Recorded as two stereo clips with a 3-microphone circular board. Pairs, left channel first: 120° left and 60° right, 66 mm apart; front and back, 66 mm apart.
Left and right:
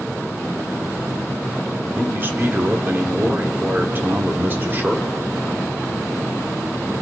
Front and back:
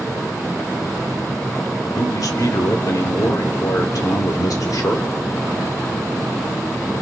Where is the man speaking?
5° right, 2 m.